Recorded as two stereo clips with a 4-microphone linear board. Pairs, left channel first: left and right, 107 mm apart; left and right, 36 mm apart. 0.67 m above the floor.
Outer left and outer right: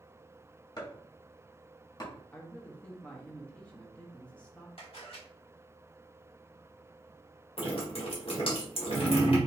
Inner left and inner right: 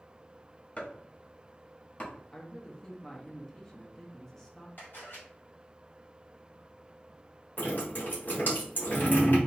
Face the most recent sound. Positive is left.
turn(degrees=55)  # may be behind; listen again after turning